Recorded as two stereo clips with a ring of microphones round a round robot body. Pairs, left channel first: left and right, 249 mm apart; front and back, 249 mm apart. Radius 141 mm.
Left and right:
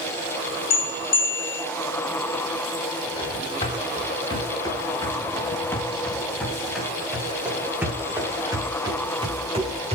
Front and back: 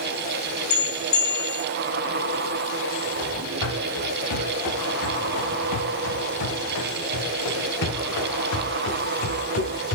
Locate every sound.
0.7 s a bell: 50° left, 3 m
3.2 s running footsteps: 20° left, 8.5 m; by 10.0 s 25° right, 6.5 m